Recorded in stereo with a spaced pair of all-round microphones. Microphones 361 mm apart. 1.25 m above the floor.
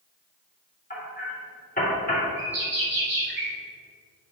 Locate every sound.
0.9 s hammering: 25° left (ahead or behind), 2.5 m
2.4 s a bird: 70° right (ahead or behind), 1.3 m